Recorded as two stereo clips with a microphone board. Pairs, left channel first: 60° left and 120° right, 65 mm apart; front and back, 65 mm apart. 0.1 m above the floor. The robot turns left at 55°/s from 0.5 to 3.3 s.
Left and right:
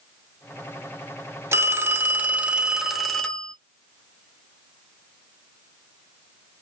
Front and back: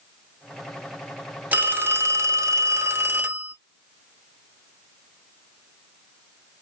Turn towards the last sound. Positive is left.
turn(degrees=135)